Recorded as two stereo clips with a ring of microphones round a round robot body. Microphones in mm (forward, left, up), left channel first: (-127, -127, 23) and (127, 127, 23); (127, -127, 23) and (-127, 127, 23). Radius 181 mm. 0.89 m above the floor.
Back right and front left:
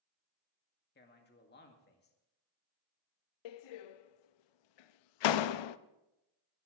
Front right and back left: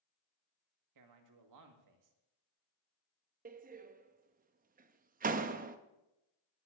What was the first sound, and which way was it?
A man speaking, 165° left.